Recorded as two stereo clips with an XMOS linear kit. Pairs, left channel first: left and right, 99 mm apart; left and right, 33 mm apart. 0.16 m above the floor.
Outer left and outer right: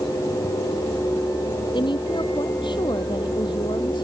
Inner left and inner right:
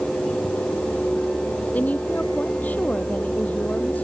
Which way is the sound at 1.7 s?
50° left (ahead or behind).